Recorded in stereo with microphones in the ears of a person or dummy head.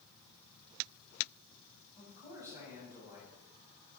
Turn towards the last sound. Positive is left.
turn(degrees=-15)  # may be behind; listen again after turning